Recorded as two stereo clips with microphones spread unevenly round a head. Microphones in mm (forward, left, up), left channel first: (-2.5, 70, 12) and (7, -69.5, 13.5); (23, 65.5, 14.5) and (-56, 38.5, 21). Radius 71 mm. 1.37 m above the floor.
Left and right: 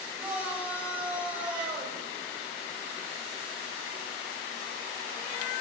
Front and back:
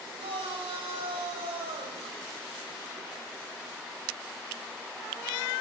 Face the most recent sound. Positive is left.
turn(degrees=-165)